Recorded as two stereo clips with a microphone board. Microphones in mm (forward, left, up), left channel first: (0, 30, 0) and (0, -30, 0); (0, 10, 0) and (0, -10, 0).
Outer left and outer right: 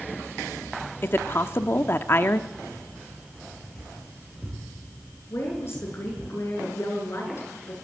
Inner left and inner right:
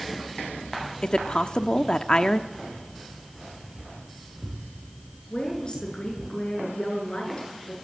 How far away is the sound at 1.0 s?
About 1.1 m.